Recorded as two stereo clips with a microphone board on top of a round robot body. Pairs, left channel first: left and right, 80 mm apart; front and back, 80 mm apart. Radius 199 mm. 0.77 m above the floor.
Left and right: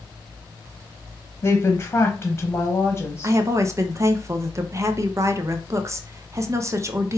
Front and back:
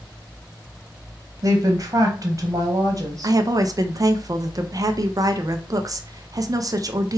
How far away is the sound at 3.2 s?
About 0.5 m.